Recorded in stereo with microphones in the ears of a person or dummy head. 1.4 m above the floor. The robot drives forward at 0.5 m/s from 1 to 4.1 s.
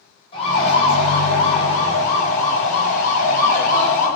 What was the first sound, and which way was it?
A siren, 35° left (ahead or behind).